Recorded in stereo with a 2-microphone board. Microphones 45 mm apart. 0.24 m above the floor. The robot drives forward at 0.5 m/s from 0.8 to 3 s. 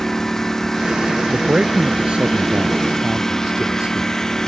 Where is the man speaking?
25° right (ahead or behind); by 4.1 s 20° right (ahead or behind).